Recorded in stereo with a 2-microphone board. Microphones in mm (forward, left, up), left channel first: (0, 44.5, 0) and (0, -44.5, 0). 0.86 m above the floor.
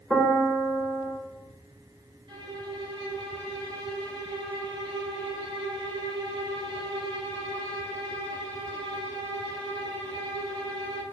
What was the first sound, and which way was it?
A piano, 5° right (ahead or behind).